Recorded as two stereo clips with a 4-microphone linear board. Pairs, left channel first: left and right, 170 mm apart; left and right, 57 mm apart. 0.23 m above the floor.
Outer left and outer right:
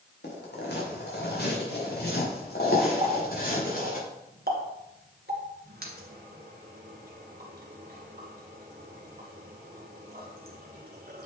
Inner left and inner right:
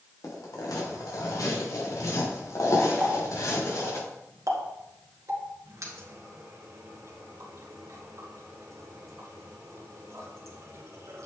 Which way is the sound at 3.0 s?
65° right (ahead or behind).